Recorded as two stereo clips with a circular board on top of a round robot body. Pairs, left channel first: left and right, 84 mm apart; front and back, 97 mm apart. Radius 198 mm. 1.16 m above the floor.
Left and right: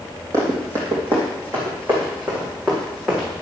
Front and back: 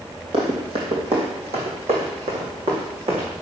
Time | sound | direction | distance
0.3 | running footsteps | 150° right | 2.5 m